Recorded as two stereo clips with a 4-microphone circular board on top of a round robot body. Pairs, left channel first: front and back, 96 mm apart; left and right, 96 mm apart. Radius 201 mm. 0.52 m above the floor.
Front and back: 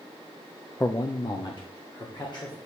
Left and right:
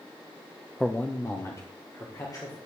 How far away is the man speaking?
About 0.8 m.